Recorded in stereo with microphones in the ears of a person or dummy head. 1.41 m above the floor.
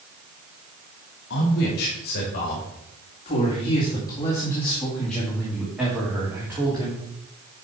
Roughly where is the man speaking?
Left.